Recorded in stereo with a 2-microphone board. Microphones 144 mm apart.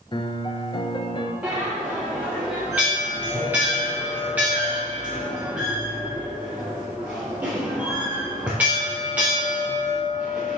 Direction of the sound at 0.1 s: 35° left (ahead or behind).